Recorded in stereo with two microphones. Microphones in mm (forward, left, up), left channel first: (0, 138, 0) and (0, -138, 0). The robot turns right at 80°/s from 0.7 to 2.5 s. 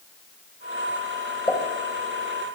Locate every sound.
1.5 s a pop: 15° left (ahead or behind), 2.5 m; by 1.6 s 5° left (ahead or behind), 2.5 m